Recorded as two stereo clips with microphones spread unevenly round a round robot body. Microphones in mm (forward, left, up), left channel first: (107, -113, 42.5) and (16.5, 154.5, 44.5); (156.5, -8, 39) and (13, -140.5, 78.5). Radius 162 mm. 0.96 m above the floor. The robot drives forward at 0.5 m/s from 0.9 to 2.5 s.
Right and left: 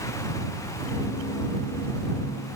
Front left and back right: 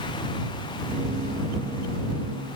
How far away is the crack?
I don't hear a crack.